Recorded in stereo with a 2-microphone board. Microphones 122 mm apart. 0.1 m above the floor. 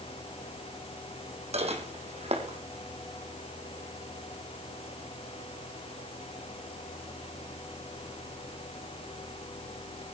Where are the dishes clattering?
60° right (ahead or behind), 3.5 m.